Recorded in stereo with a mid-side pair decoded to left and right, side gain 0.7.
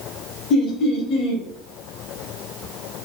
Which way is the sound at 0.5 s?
55° left.